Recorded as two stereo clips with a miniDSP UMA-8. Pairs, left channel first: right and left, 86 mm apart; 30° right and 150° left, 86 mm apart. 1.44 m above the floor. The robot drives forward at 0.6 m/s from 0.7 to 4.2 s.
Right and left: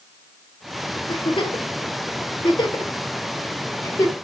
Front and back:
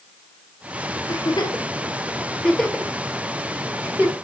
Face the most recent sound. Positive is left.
turn(degrees=-150)